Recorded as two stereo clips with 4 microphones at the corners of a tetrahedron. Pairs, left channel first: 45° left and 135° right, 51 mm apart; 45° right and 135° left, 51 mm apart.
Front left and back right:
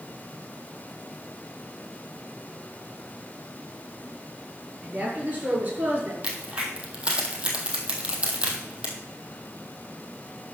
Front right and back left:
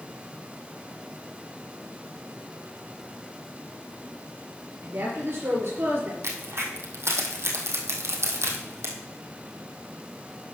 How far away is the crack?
About 1.9 m.